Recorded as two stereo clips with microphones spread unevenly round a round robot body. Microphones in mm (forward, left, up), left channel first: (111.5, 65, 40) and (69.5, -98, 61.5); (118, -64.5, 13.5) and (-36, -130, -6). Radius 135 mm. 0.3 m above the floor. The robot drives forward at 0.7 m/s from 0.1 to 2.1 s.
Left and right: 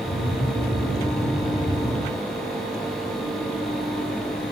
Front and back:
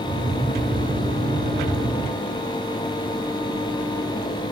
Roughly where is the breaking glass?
I don't hear breaking glass.